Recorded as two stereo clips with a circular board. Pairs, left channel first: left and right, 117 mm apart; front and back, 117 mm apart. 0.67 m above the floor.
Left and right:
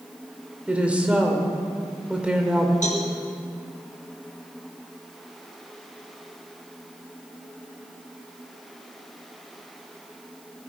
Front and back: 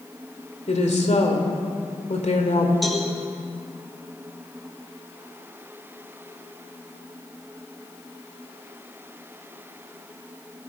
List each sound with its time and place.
0.7 s a woman speaking: 10° right, 2 m
2.8 s a cowbell: 90° left, 3 m